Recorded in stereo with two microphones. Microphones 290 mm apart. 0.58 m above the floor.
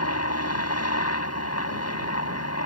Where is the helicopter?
55° left (ahead or behind).